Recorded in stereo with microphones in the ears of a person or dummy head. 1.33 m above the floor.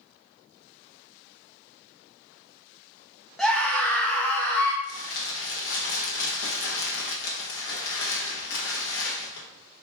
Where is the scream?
5° left (ahead or behind), 1.0 m; by 4.7 s 15° left (ahead or behind), 1.8 m.